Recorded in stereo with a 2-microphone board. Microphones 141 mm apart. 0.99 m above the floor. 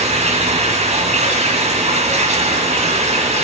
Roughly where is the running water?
Right.